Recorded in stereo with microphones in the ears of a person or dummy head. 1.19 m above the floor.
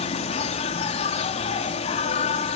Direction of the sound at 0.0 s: 35° left (ahead or behind).